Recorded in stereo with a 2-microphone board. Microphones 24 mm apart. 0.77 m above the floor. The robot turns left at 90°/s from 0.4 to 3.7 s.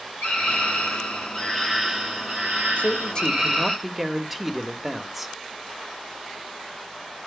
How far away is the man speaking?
About 1.4 m.